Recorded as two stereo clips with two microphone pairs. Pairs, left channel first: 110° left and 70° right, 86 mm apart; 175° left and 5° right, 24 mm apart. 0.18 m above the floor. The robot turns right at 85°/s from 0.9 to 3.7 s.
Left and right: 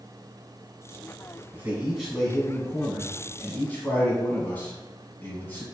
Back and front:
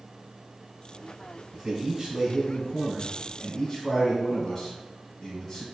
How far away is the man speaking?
About 1.1 m.